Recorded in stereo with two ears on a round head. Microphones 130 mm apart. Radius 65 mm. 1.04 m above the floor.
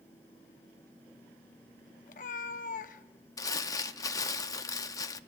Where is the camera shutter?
I don't hear a camera shutter.